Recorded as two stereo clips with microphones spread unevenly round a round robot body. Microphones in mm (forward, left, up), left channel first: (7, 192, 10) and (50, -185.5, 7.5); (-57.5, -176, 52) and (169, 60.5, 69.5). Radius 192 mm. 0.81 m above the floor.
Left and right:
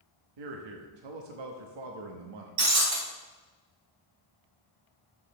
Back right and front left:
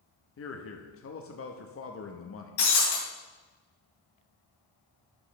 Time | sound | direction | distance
0.4 | a man speaking | 90° right | 1.0 m
2.6 | breaking glass | 125° right | 3.5 m